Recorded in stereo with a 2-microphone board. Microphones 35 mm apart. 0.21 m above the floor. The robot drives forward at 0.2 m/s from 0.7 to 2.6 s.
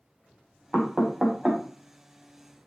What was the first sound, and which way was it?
Knocking, 20° right (ahead or behind).